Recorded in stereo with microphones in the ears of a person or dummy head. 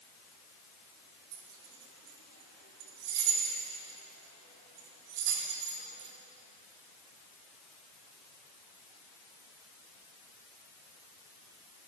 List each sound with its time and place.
1.3 s keys jangling: 70° right (ahead or behind), 1.7 m